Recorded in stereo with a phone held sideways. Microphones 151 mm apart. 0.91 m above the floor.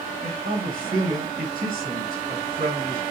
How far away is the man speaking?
About 2.5 m.